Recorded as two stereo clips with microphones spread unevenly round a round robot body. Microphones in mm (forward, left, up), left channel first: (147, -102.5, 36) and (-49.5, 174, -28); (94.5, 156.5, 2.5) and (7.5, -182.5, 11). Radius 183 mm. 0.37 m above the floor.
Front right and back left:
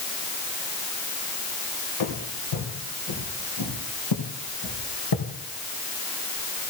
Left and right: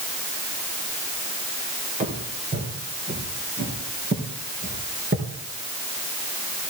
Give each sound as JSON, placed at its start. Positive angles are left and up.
{"t": 2.0, "sound": "footsteps", "azimuth_deg": -35, "distance_m": 3.5}